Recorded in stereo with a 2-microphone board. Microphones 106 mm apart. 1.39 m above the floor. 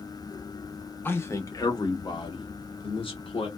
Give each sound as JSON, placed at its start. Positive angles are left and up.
{"t": 1.1, "sound": "a man speaking", "side_deg": 20, "distance_m": 1.0}